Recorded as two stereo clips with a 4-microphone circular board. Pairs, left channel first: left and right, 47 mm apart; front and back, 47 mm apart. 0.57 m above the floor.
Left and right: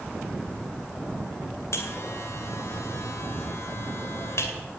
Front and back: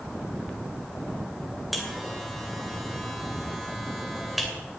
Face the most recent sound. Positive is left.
turn(degrees=90)